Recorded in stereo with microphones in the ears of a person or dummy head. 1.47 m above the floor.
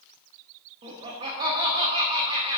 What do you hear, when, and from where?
0.8 s laughter: 30° right (ahead or behind), 0.9 m